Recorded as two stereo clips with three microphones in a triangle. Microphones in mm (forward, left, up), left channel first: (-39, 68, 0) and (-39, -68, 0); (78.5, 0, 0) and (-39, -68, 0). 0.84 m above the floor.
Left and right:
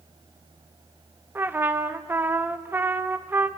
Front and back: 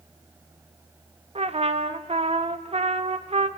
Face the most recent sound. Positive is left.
turn(degrees=-160)